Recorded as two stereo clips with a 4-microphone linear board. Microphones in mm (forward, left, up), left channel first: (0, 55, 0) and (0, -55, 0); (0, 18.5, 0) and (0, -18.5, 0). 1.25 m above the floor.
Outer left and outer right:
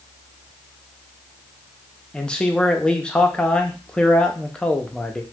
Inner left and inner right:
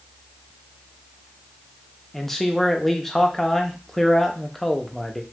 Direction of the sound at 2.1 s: 5° left (ahead or behind).